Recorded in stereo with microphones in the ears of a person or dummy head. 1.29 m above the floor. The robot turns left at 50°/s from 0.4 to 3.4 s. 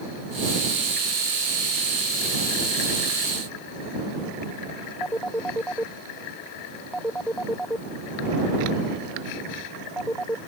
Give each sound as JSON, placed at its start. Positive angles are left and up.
{"t": 5.0, "sound": "a phone ringing", "side_deg": 5}